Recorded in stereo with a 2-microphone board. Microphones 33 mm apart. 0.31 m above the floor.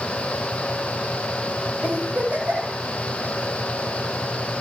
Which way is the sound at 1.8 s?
45° right (ahead or behind).